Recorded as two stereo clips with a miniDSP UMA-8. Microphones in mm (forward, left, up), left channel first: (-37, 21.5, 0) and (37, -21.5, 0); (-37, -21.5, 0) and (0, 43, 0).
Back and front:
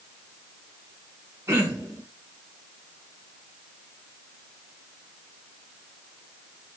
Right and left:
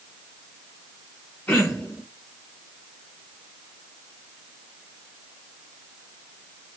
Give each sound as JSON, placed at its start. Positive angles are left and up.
{"t": 1.5, "sound": "throat clearing", "azimuth_deg": -70, "distance_m": 0.9}